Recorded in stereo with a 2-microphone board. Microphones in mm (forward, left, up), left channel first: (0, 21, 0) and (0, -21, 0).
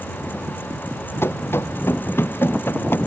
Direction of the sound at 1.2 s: 70° left (ahead or behind).